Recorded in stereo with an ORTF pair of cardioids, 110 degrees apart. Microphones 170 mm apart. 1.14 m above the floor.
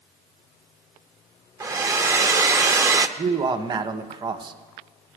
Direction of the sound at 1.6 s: 20° right.